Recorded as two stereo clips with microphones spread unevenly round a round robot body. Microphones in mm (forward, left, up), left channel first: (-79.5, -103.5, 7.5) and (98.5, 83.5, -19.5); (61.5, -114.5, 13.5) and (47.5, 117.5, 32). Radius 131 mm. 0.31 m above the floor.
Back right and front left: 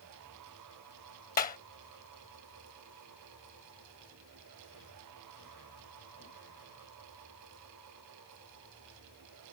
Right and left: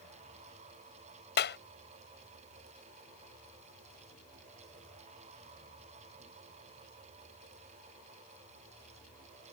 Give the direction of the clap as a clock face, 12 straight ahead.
3 o'clock.